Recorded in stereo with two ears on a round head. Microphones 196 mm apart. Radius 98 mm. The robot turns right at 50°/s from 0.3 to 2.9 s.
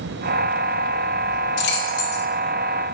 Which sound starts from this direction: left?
Keys jangling, at 1.6 s.